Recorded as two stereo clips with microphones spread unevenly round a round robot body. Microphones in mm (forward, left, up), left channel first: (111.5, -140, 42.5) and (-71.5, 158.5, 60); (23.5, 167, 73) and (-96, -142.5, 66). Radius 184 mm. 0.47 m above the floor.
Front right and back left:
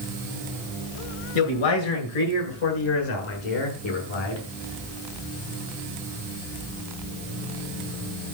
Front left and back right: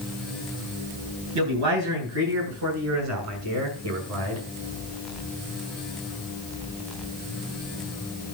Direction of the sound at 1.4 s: 70° right.